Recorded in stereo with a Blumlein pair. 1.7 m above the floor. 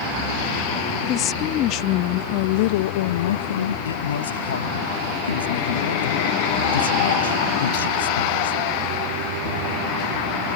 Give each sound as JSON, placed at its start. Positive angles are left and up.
{"t": 1.0, "sound": "a woman speaking", "azimuth_deg": 30}
{"t": 3.9, "sound": "a man speaking", "azimuth_deg": 65}